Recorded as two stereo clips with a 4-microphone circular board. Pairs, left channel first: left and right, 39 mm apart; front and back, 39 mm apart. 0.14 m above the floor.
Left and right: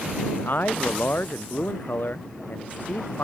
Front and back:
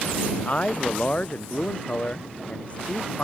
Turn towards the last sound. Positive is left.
turn(degrees=55)